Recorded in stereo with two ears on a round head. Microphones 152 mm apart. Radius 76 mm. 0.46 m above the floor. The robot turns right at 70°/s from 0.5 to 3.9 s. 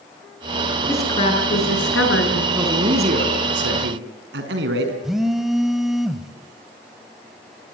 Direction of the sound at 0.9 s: 10° left.